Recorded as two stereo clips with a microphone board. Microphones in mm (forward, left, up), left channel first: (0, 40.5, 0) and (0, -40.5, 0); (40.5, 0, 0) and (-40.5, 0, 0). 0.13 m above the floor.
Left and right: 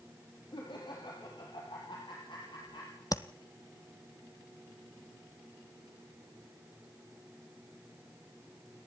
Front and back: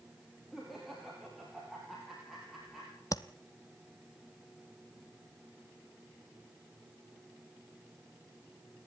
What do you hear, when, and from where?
0.5 s laughter: 90° left, 4 m
3.1 s tapping: 45° left, 0.8 m